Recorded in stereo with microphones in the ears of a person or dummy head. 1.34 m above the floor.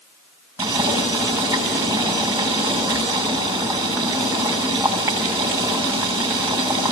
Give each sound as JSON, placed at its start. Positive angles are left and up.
{"t": 0.6, "sound": "boiling", "side_deg": -10, "distance_m": 7.0}